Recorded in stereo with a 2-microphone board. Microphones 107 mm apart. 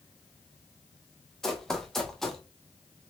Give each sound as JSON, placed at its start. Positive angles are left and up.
{"t": 1.4, "sound": "running footsteps", "side_deg": 5, "distance_m": 1.1}